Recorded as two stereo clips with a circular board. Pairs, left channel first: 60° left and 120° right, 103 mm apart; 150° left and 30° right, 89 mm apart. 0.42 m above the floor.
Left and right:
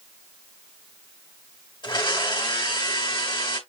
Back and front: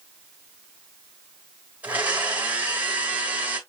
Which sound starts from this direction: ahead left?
A blender, at 1.8 s.